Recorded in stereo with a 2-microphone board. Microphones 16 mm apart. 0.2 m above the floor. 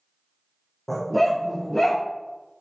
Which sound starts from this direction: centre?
A dog barking, at 0.9 s.